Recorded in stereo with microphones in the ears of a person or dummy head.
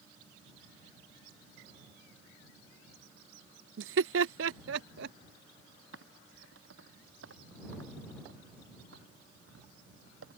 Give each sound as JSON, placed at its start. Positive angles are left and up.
{"t": 3.8, "sound": "laughter", "side_deg": -60}
{"t": 5.9, "sound": "typing on a keyboard", "side_deg": -85}